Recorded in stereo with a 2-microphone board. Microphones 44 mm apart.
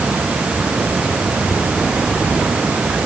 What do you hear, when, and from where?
Only background noise.